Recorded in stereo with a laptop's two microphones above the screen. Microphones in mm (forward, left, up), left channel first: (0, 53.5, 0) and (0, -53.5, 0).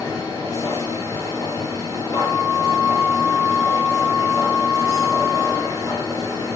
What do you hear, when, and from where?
0.0 s a machine running: 35° left (ahead or behind), 0.8 m
2.1 s a flute: 45° left (ahead or behind), 1.0 m